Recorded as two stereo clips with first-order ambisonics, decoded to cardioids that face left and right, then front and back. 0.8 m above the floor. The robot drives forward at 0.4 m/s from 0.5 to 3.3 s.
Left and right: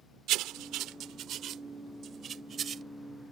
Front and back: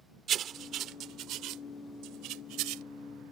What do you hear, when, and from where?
0.3 s writing: 125° right; by 2.8 s 155° right